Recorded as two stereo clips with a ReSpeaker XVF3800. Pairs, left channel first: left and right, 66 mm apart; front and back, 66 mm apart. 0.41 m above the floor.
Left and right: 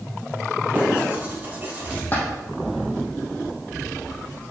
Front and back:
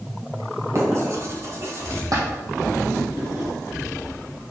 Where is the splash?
150° left, 3 m.